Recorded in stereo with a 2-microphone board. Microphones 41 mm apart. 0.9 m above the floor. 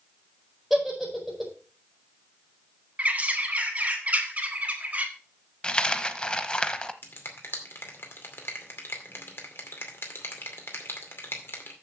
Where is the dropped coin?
20° left (ahead or behind), 0.7 m.